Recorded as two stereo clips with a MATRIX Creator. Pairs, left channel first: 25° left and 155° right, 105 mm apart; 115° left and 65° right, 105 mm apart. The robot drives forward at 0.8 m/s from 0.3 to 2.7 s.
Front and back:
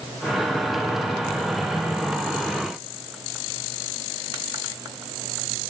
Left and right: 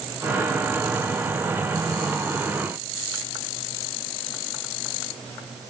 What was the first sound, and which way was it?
Only background noise.